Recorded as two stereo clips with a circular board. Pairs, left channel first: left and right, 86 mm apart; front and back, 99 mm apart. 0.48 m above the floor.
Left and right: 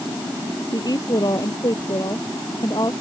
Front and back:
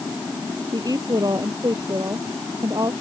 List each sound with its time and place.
0.7 s a woman speaking: 130° left